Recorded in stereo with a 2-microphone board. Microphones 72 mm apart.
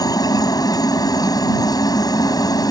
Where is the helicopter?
60° left (ahead or behind).